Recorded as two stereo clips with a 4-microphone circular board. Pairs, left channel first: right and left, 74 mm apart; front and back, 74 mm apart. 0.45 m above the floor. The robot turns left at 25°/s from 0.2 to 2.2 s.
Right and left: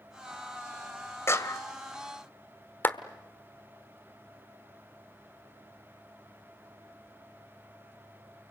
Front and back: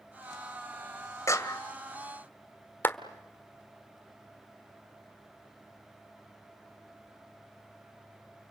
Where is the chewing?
No chewing in this recording.